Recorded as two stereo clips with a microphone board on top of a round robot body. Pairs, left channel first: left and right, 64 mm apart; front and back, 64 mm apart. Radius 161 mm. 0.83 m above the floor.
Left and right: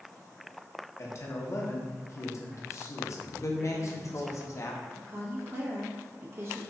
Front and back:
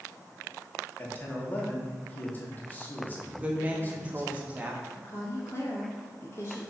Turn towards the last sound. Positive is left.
turn(degrees=-50)